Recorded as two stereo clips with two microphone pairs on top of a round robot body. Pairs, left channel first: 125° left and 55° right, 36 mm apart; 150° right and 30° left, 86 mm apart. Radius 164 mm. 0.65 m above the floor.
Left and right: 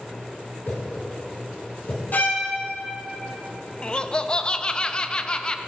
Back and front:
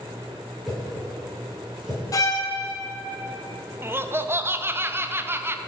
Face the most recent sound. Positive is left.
turn(degrees=85)